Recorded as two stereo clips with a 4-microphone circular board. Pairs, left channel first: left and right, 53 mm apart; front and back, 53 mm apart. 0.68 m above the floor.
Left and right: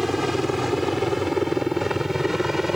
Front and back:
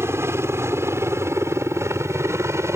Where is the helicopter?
Straight behind; by 2.8 s 175° right.